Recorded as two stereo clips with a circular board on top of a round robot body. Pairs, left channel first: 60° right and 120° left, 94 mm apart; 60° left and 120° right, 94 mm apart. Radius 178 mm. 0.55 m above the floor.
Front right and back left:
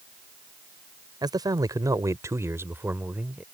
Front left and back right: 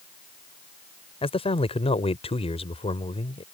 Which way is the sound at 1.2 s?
75° left.